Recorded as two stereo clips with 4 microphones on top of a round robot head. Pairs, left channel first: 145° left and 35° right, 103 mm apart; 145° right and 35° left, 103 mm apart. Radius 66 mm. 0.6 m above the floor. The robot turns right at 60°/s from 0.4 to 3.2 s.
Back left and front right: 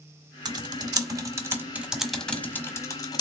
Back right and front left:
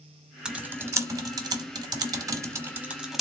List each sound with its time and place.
0.5 s typing on a keyboard: 40° right, 1.0 m; by 3.2 s 125° left, 1.0 m